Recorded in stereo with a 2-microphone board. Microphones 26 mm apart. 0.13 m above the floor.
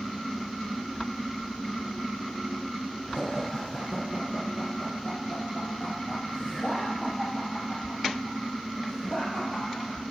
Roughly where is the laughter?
Left.